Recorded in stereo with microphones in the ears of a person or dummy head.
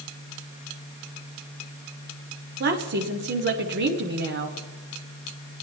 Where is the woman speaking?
55° right (ahead or behind), 1.3 m.